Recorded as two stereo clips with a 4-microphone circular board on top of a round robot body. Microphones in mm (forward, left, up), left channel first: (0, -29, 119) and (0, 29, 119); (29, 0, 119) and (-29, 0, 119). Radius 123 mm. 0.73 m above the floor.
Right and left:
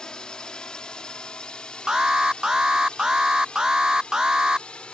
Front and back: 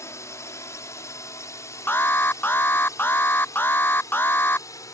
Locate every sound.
0.0 s a drone: 15° right; by 5.0 s 20° right
1.9 s an alarm: 20° left